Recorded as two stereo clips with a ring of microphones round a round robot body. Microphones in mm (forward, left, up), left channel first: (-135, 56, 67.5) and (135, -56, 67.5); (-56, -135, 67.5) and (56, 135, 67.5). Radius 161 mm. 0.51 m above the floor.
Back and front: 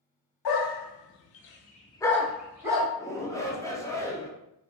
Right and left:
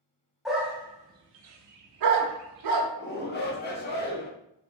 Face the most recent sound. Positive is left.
turn(degrees=-130)